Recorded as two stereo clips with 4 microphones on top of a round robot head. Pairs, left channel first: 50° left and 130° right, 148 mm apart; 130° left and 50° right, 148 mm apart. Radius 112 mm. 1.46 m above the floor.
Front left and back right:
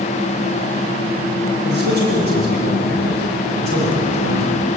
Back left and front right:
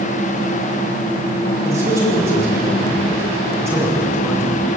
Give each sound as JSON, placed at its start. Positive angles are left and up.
{"t": 1.6, "sound": "a man speaking", "azimuth_deg": -125, "distance_m": 8.5}